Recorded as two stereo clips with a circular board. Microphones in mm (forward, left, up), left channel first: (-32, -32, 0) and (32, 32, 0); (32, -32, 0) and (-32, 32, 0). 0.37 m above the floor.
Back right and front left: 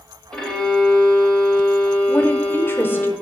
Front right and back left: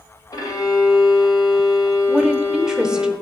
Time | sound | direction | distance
0.3 | a violin | 55° right | 1.6 m
2.1 | a woman speaking | 150° right | 0.8 m